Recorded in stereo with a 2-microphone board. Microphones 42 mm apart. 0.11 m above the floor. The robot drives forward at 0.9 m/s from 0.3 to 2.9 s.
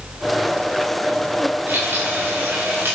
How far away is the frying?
About 8 m.